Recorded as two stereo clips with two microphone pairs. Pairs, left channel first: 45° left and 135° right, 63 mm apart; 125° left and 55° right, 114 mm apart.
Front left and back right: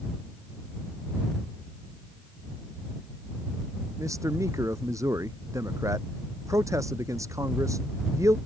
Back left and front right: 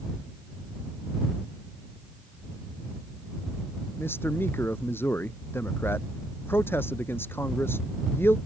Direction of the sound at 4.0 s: 165° right.